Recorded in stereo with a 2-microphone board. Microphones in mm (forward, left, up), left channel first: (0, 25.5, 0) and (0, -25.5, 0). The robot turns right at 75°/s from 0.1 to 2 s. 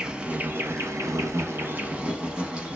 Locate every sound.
0.0 s an insect: 165° right, 0.7 m; by 2.8 s 20° right, 0.7 m